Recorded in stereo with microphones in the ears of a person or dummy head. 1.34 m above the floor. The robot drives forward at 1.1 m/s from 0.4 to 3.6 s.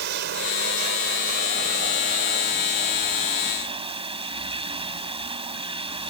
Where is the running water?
60° right (ahead or behind); by 6.1 s 30° right (ahead or behind).